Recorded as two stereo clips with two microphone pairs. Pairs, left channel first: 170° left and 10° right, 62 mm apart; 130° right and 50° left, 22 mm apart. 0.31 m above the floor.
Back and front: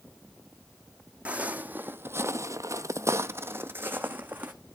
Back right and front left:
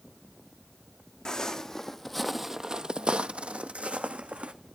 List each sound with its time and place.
1.2 s footsteps: 80° right, 0.8 m; by 4.5 s 55° left, 1.2 m